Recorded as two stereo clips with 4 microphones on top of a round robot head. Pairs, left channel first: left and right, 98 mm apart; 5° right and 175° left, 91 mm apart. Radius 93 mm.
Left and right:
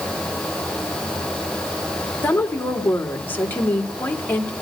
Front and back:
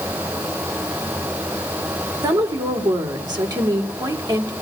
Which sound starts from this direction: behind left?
A woman speaking, at 2.2 s.